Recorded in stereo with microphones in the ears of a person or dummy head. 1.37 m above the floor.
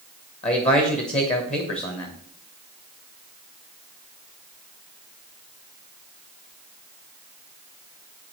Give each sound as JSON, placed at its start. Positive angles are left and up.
{"t": 0.4, "sound": "a man speaking", "side_deg": 35, "distance_m": 1.2}